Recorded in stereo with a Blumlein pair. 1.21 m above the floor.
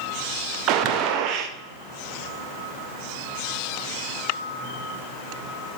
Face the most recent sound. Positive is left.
turn(degrees=-40)